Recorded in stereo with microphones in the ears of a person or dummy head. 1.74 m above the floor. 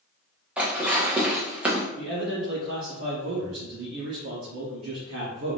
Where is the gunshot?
No gunshot in this recording.